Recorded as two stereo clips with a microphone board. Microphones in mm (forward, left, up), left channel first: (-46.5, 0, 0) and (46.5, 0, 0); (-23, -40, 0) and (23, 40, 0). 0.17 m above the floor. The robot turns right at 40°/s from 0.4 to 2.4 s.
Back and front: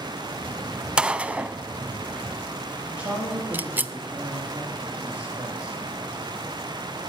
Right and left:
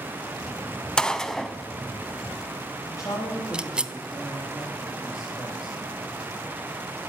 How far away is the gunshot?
About 0.5 m.